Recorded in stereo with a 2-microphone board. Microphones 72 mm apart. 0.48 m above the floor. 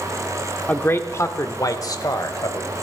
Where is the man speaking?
25° left (ahead or behind), 0.8 m; by 2.7 s 65° left (ahead or behind), 1.7 m.